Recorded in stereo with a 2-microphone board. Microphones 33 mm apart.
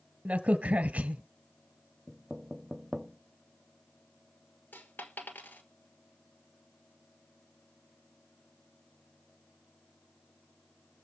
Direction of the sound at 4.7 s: 70° left (ahead or behind).